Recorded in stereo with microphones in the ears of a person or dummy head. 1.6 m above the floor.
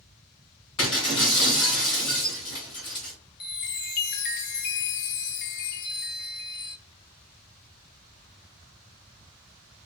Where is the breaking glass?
30° left (ahead or behind), 1.9 m.